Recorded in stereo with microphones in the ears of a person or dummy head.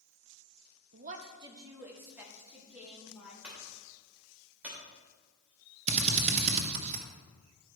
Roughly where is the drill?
Right.